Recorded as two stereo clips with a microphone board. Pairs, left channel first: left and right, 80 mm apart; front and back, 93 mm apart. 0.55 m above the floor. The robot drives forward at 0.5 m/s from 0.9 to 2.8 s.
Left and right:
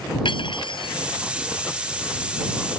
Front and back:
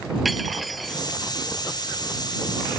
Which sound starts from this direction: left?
Cutlery clinking, at 0.2 s.